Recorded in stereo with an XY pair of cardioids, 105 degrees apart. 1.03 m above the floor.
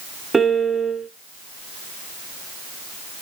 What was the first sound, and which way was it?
A piano, 25° right.